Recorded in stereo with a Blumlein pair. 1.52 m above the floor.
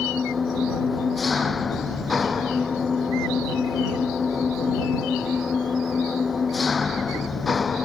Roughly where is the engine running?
Ahead.